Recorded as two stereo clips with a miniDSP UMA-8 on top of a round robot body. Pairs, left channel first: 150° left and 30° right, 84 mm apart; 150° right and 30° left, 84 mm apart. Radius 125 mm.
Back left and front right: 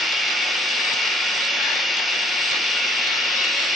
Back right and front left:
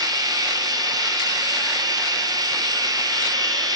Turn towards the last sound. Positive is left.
turn(degrees=60)